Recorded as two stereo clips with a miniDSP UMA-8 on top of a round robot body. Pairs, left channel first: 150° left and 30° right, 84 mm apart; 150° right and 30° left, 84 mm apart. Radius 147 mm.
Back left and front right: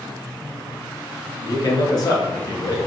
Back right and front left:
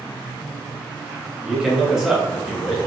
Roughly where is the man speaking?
Behind left.